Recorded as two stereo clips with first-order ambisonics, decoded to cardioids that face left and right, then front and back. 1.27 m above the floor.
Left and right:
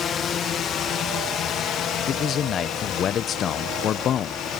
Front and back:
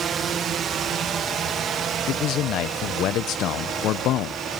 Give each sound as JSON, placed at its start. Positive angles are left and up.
{"t": 0.0, "sound": "a drone", "azimuth_deg": 135}
{"t": 2.1, "sound": "a man speaking", "azimuth_deg": 35}